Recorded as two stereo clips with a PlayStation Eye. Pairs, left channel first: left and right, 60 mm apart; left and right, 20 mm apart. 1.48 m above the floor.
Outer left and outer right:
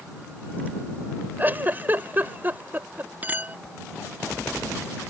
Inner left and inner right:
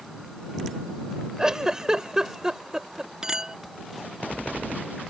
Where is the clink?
30° right (ahead or behind).